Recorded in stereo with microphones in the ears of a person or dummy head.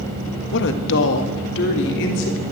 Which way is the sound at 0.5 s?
65° left (ahead or behind).